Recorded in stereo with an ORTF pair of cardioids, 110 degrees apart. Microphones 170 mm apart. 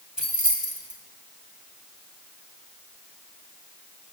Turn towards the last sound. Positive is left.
turn(degrees=-5)